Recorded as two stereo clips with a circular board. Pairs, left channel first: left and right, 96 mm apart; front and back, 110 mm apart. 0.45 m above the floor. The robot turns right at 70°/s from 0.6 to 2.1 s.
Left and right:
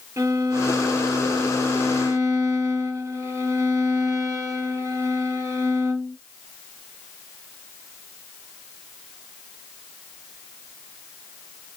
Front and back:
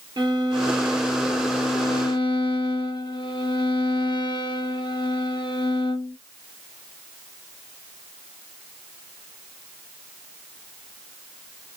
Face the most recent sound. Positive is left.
turn(degrees=-35)